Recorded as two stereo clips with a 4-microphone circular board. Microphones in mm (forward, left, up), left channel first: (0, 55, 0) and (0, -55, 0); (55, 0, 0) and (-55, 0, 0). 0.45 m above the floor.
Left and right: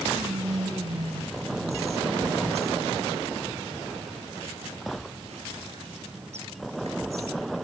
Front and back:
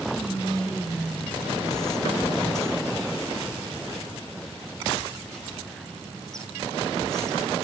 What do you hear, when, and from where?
0.1 s whispering: 85° right, 4 m